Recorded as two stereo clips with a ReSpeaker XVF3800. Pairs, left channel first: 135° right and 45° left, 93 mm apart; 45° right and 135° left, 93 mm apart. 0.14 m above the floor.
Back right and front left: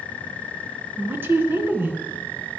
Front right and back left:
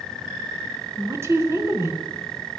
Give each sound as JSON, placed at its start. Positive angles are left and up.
{"t": 1.0, "sound": "a woman speaking", "azimuth_deg": 95, "distance_m": 2.0}